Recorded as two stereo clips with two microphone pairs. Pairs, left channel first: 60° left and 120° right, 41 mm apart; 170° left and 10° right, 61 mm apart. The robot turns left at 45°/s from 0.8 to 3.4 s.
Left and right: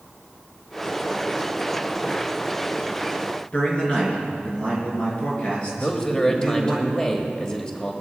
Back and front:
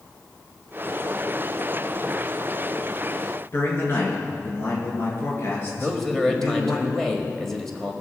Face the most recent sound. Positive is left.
turn(degrees=95)